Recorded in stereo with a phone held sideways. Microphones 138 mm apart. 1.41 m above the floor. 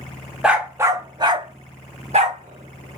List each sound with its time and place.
0.4 s a dog barking: 5° right (ahead or behind), 0.9 m; by 3.0 s 65° right (ahead or behind), 1.8 m